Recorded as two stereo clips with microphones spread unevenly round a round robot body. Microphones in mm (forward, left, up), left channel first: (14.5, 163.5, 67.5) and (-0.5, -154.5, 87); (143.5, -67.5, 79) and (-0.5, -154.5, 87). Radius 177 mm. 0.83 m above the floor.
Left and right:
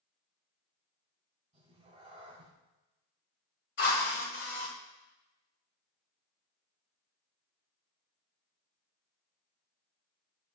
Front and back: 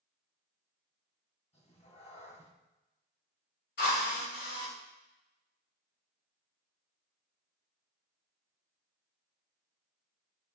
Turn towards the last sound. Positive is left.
turn(degrees=30)